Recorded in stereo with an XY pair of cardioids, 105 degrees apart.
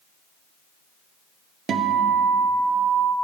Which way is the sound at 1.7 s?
55° right.